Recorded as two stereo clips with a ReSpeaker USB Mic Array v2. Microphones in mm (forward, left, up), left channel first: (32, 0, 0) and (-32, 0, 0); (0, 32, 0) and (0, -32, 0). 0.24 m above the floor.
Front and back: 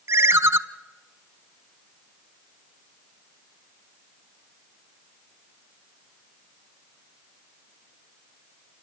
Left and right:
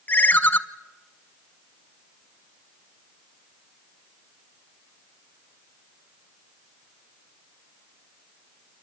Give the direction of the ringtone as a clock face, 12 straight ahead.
7 o'clock.